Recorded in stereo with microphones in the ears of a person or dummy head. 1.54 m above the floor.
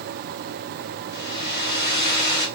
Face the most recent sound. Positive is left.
turn(degrees=55)  # may be behind; listen again after turning